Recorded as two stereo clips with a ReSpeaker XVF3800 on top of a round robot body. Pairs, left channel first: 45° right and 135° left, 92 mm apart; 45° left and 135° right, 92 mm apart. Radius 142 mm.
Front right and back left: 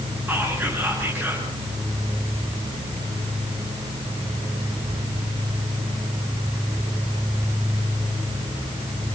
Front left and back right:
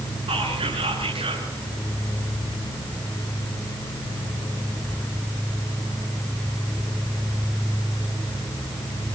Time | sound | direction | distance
0.3 | whispering | 155° right | 9 m